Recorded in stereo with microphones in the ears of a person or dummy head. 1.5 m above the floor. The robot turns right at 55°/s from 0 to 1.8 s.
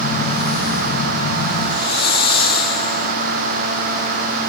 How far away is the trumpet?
I don't hear a trumpet.